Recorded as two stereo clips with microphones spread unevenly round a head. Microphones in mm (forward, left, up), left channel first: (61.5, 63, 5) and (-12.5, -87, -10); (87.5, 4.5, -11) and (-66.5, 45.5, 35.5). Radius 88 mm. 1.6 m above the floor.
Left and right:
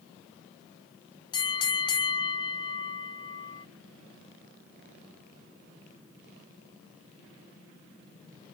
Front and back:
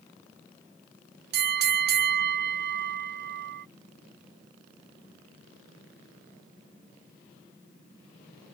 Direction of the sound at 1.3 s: 135° left.